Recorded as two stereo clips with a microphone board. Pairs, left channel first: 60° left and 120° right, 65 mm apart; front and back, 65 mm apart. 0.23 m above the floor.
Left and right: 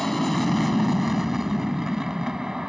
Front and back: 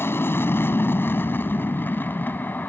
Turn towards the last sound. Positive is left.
turn(degrees=-45)